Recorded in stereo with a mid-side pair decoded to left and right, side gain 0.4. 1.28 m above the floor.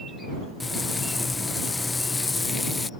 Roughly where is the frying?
Ahead left.